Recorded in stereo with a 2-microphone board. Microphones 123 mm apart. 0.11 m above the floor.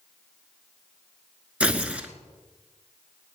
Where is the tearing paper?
10° right (ahead or behind), 1.1 m.